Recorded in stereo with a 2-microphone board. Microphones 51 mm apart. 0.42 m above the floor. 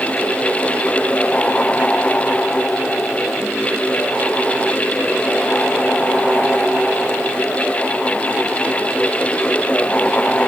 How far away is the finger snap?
I don't hear a finger snap.